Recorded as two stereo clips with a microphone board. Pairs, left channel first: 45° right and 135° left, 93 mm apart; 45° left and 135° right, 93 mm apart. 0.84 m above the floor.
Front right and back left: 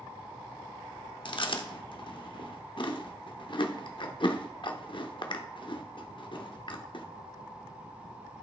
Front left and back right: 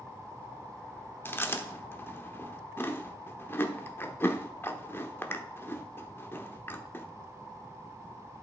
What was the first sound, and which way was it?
Chewing, 20° right.